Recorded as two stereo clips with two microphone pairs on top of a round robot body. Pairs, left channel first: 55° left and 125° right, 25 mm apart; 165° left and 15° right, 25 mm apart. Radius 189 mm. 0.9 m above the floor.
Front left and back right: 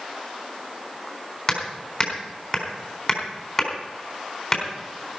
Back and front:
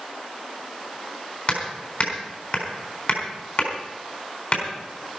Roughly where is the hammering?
Behind left.